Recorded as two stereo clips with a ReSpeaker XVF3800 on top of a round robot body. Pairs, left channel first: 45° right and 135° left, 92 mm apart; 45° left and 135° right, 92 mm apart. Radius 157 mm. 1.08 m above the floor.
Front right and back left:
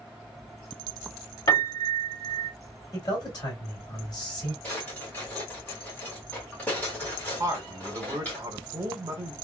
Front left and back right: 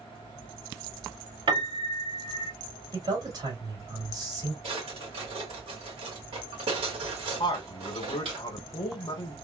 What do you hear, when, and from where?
1.5 s a piano: 95° right, 2 m
2.9 s a man speaking: 95° right, 2 m
4.6 s a drawer: 120° right, 1.7 m
7.4 s a man speaking: 85° left, 1.1 m